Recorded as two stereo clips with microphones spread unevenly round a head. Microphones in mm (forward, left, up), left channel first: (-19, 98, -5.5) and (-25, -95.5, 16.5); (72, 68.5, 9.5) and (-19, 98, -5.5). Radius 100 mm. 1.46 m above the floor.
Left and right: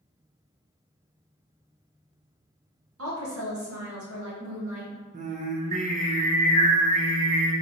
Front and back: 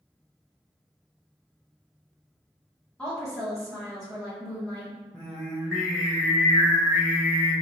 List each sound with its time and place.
3.0 s a woman speaking: 105° right, 1.4 m
5.1 s singing: 90° right, 0.7 m